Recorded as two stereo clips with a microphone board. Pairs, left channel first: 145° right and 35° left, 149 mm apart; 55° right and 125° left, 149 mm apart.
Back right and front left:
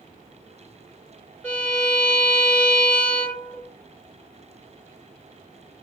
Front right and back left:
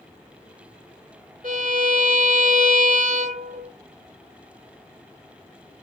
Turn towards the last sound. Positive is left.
turn(degrees=135)